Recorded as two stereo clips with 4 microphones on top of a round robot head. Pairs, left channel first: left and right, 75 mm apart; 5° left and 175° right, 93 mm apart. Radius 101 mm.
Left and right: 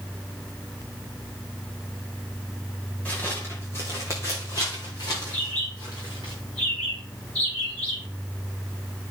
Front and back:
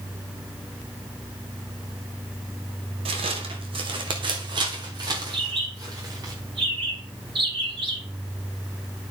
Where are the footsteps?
170° left, 1.3 m; by 6.3 s 135° left, 2.5 m.